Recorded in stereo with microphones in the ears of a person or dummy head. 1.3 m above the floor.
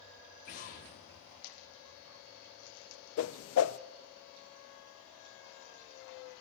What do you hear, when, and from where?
0.5 s an explosion: 35° left (ahead or behind), 0.9 m
3.2 s a whoosh: 70° left (ahead or behind), 0.5 m